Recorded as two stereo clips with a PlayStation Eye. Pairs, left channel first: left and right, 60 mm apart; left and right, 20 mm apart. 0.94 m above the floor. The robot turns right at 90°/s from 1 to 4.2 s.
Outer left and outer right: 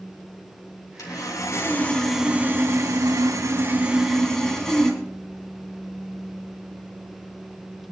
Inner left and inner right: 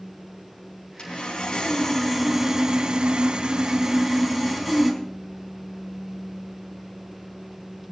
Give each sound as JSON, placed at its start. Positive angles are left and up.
{"t": 1.0, "sound": "sawing", "azimuth_deg": 80, "distance_m": 5.0}